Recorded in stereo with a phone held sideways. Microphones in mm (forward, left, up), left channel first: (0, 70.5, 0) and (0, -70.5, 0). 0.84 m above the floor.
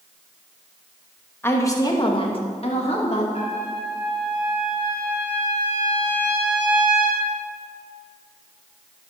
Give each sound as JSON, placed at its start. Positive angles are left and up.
{"t": 1.4, "sound": "a woman speaking", "side_deg": 15, "distance_m": 1.2}
{"t": 3.3, "sound": "a trumpet", "side_deg": 50, "distance_m": 3.5}